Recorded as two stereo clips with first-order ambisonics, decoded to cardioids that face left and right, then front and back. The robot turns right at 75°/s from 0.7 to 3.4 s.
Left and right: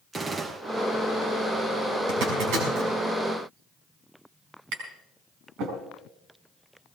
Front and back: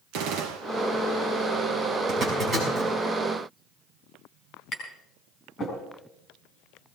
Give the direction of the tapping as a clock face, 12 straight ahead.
2 o'clock.